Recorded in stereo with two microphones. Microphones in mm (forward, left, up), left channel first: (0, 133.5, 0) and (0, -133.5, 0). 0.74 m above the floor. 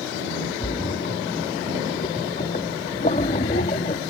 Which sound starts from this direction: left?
A splash, at 0.6 s.